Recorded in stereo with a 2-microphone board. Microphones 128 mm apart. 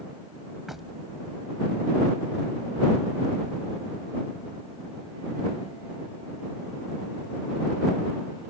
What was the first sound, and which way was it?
Knocking, 5° right (ahead or behind).